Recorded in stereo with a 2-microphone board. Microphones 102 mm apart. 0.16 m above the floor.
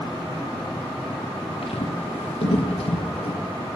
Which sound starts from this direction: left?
Footsteps, at 1.6 s.